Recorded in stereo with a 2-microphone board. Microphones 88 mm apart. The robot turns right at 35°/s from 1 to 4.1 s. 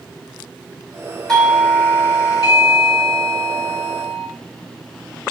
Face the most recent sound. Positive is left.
turn(degrees=105)